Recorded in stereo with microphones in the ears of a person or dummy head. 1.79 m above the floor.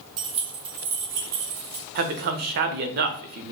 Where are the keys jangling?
30° right (ahead or behind), 1.3 m; by 1.9 s 40° right (ahead or behind), 2.5 m.